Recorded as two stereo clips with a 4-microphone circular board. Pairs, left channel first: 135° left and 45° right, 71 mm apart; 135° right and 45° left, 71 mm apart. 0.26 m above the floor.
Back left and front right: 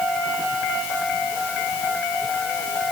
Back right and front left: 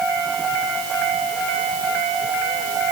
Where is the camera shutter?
No camera shutter in this recording.